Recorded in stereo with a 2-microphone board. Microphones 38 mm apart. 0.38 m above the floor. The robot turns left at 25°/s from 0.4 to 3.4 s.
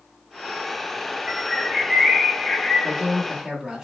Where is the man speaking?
Centre (ahead or behind), 0.9 m; by 3.9 s 5° right (ahead or behind), 0.9 m.